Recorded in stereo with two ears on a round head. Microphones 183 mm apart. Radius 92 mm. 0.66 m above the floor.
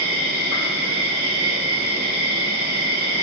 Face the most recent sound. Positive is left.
turn(degrees=-50)  # may be behind; listen again after turning